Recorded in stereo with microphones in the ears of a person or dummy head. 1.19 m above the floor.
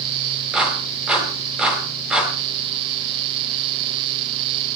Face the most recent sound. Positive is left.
turn(degrees=-5)  # may be behind; listen again after turning